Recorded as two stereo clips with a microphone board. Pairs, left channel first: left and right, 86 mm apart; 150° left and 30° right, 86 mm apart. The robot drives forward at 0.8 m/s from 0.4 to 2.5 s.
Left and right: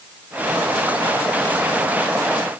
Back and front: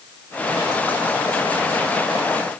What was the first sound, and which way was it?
Only background noise.